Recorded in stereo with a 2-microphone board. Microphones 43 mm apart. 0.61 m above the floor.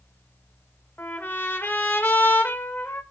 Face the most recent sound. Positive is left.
turn(degrees=55)  # may be behind; listen again after turning